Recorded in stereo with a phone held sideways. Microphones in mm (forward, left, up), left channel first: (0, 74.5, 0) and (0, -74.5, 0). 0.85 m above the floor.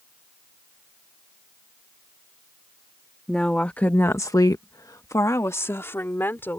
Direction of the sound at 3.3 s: 5° left (ahead or behind).